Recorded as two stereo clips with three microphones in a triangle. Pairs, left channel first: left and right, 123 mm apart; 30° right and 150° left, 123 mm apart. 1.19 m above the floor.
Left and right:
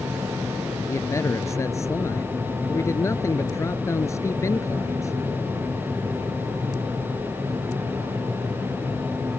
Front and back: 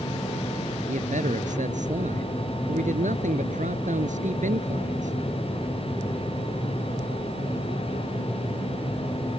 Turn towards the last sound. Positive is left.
turn(degrees=155)